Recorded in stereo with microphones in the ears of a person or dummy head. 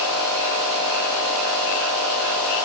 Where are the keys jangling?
No keys jangling in this recording.